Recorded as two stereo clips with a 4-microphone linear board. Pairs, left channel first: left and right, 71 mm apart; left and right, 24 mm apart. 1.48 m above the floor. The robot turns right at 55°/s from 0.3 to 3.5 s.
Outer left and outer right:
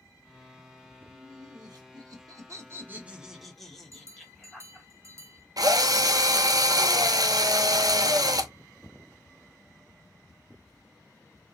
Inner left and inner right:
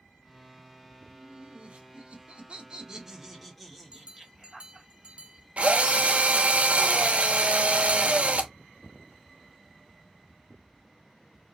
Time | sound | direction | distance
1.0 | laughter | 135° right | 1.1 m
3.9 | a bell | 45° right (ahead or behind) | 0.6 m
5.6 | a drill | 65° right (ahead or behind) | 0.5 m